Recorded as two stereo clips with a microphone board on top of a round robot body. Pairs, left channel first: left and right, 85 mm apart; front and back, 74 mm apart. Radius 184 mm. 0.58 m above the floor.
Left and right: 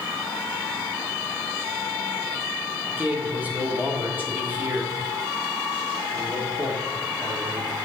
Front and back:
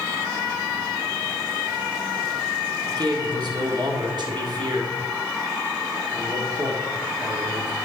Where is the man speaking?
160° right, 1.7 m.